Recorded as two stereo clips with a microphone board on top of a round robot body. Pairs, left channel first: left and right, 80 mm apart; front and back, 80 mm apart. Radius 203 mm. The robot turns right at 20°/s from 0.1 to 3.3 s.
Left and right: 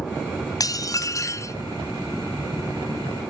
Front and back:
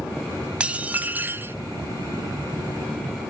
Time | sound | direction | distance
0.6 | dishes clattering | 110° left | 0.7 m